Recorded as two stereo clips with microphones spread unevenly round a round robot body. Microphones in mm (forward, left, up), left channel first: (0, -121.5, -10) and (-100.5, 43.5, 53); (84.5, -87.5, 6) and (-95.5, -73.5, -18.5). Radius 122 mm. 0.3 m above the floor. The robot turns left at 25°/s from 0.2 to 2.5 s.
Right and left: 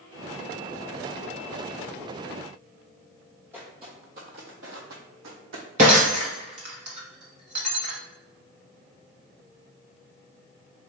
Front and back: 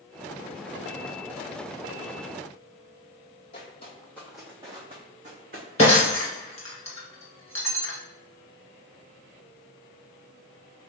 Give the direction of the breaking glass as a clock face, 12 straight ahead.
10 o'clock.